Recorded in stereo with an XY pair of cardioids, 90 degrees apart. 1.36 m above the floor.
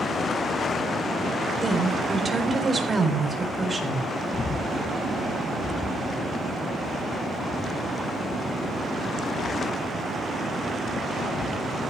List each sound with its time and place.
1.6 s a woman speaking: 30° right, 4 m
4.3 s breathing: 30° left, 1.2 m